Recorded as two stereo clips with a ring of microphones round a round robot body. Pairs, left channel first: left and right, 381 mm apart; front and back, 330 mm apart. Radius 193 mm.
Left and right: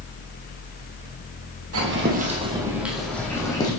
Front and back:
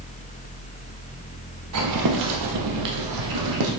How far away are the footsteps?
About 1.4 m.